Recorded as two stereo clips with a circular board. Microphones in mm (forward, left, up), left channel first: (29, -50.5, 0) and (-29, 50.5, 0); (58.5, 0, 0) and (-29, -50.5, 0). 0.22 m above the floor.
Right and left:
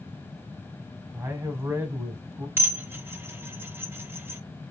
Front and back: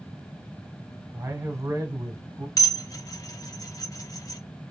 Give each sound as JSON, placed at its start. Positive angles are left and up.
{"t": 1.1, "sound": "a man speaking", "azimuth_deg": 170, "distance_m": 1.3}
{"t": 2.6, "sound": "dishes clattering", "azimuth_deg": 60, "distance_m": 0.9}